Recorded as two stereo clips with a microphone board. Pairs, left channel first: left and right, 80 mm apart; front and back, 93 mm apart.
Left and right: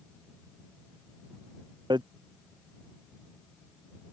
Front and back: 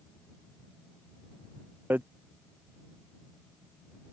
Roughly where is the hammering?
Right.